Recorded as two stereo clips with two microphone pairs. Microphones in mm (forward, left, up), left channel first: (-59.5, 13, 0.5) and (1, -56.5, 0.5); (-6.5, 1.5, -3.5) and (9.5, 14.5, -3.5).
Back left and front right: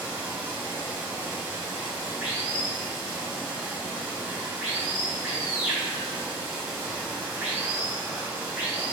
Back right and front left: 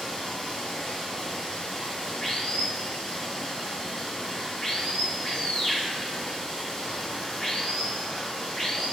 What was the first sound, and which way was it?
Running water, 120° right.